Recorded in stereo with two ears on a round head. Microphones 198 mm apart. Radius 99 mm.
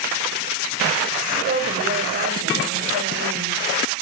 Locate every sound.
1.4 s a woman speaking: 40° right (ahead or behind), 4.5 m